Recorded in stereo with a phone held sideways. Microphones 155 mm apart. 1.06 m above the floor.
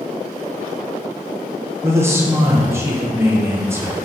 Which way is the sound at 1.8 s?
15° right (ahead or behind).